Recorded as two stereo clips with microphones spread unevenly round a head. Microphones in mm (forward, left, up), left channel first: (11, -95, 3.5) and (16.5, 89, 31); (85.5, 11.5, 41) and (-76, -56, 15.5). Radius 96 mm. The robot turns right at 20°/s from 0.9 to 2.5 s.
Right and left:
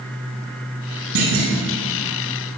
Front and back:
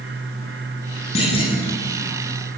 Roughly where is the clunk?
Left.